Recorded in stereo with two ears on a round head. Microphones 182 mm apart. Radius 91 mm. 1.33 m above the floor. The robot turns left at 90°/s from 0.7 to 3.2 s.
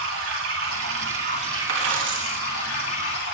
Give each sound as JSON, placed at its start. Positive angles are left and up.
{"t": 0.0, "sound": "running water", "azimuth_deg": -75, "distance_m": 5.5}
{"t": 1.7, "sound": "a dropped coin", "azimuth_deg": -70, "distance_m": 3.0}